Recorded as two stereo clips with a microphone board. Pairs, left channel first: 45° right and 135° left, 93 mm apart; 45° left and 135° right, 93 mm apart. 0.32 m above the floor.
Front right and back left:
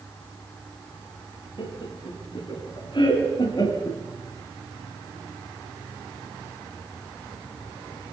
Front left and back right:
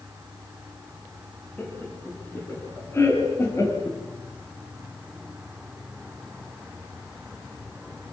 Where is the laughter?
25° right, 4 m; by 4.0 s 5° right, 3 m.